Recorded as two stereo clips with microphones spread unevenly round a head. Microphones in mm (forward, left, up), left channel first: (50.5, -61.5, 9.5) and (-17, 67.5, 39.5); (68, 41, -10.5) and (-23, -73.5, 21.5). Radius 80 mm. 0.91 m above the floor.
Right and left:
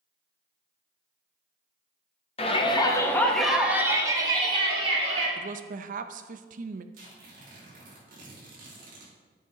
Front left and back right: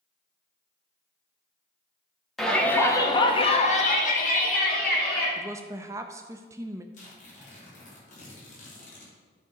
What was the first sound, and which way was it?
A shout, 30° right.